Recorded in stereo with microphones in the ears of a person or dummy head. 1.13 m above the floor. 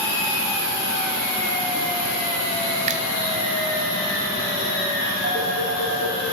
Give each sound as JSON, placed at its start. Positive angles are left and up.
{"t": 2.9, "sound": "a finger snap", "side_deg": -40, "distance_m": 1.4}
{"t": 5.2, "sound": "a phone ringing", "side_deg": -45, "distance_m": 6.0}